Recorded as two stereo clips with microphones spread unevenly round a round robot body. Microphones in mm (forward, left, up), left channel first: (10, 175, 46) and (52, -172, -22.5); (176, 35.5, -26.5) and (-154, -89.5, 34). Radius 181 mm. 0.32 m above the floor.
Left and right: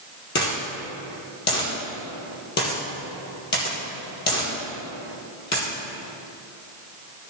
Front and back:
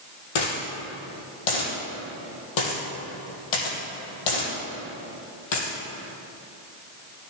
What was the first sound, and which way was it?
A dropped coin, 35° left.